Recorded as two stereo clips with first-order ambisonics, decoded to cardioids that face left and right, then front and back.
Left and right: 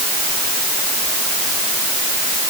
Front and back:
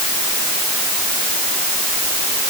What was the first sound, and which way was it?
Only background noise.